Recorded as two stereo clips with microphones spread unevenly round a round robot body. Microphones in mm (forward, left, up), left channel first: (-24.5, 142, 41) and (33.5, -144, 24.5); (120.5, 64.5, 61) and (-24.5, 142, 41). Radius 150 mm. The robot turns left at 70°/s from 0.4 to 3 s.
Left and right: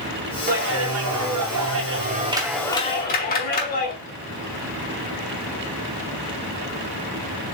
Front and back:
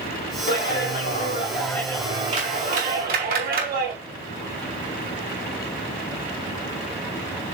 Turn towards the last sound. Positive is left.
turn(degrees=160)